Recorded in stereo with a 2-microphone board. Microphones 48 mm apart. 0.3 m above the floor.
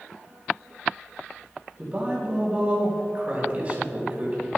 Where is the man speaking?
35° right (ahead or behind), 2.5 m.